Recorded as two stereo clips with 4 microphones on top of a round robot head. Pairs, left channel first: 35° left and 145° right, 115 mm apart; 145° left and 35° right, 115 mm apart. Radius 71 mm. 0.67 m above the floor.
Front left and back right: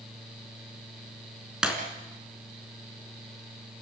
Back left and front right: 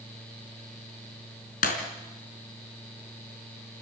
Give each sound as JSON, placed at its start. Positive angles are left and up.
{"t": 1.6, "sound": "breaking glass", "azimuth_deg": 135, "distance_m": 3.5}